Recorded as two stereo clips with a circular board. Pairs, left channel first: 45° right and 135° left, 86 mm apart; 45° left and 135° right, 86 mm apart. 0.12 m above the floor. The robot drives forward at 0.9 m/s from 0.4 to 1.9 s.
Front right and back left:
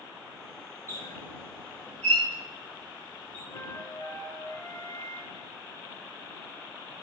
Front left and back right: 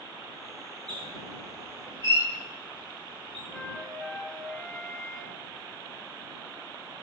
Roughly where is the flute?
Ahead right.